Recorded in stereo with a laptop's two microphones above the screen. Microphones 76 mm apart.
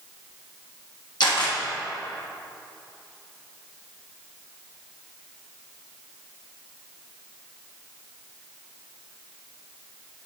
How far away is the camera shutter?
About 1.5 m.